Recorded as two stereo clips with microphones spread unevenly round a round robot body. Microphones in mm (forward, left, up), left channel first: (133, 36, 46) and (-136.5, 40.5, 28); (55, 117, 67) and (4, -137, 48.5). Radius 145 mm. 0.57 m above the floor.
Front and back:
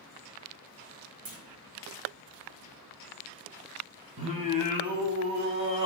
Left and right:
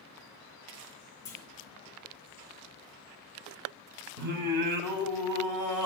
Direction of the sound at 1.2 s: 160° left.